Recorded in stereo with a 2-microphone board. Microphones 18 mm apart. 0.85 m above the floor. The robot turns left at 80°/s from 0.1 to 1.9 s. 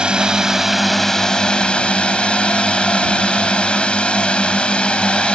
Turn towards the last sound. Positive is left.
turn(degrees=100)